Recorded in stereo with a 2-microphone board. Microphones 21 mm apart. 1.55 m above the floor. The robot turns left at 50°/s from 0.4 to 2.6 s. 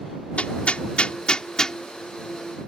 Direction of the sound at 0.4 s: 85° left.